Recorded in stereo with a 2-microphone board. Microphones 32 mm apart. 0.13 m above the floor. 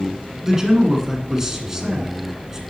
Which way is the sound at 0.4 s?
15° right (ahead or behind).